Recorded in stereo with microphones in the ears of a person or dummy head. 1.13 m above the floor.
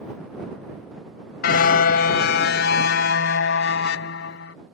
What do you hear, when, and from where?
1.4 s a car horn: 65° left (ahead or behind); by 4.5 s 80° left